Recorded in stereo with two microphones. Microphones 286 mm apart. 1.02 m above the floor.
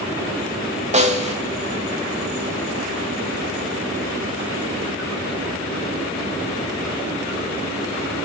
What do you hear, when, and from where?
0.9 s a snare drum: 25° right (ahead or behind), 1.1 m